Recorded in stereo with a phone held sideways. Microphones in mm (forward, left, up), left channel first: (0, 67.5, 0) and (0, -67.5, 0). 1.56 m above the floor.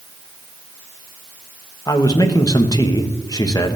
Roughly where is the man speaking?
Left.